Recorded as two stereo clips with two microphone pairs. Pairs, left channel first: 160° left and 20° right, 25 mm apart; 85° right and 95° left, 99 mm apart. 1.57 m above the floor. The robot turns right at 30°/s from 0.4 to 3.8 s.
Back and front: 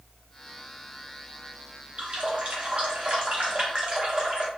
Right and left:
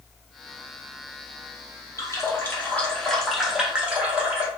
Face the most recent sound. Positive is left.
turn(degrees=20)